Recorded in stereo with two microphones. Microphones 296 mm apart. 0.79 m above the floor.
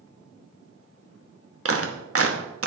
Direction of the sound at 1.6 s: 50° right (ahead or behind).